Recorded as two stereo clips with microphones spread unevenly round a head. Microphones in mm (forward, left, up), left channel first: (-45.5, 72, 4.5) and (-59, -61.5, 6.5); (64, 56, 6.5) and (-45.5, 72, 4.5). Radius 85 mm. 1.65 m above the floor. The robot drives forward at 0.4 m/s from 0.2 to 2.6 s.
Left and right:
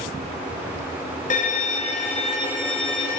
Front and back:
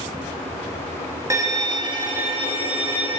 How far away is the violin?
About 0.8 m.